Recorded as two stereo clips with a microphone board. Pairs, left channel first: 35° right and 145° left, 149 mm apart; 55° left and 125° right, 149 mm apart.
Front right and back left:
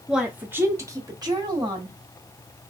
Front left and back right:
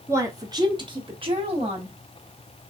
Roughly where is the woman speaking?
Behind right.